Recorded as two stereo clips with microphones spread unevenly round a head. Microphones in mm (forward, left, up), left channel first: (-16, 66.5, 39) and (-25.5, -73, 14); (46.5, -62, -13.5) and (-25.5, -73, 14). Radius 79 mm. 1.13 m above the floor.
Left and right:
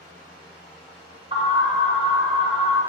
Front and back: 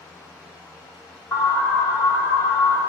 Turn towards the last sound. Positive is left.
turn(degrees=-45)